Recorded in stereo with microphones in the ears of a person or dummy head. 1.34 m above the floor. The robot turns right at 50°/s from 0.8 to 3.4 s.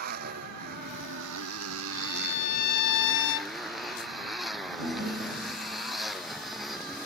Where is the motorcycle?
125° right; by 7.1 s 5° left.